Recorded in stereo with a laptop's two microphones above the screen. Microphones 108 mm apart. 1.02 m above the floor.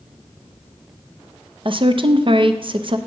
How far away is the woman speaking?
About 0.6 m.